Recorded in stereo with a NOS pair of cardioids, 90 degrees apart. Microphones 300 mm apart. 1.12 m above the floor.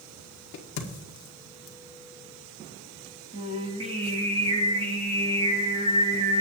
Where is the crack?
65° left, 1.8 m.